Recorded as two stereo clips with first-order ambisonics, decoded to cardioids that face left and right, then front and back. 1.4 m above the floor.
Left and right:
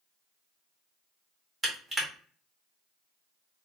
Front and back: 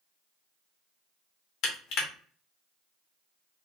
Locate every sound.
1.6 s crushing: 10° right, 0.9 m